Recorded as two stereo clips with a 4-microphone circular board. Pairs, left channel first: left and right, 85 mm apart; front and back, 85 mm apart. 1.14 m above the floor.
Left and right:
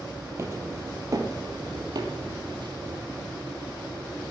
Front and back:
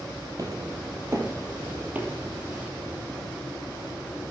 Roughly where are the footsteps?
Behind right.